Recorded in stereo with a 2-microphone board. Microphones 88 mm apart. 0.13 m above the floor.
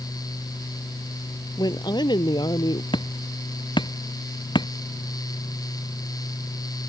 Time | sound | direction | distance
1.6 | a woman speaking | 50° left (ahead or behind) | ?
2.9 | hammering | 60° left (ahead or behind) | ?